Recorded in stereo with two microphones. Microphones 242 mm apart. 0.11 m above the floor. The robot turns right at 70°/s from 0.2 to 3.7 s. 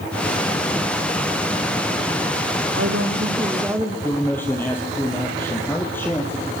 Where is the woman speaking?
75° right, 5 m; by 3.9 s 10° right, 5 m.